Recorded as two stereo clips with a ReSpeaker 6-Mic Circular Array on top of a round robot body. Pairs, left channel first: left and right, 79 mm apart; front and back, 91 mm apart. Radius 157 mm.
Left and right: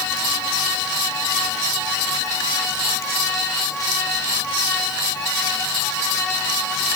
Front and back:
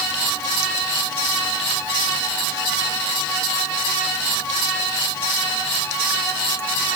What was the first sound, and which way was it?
Only background noise.